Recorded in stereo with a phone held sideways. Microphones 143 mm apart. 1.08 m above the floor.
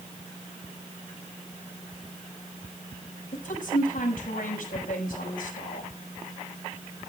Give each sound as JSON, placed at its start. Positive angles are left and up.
{"t": 3.3, "sound": "a woman speaking", "side_deg": 80, "distance_m": 5.0}